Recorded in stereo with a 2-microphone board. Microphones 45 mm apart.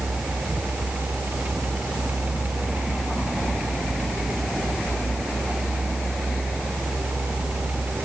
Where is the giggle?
I don't hear a giggle.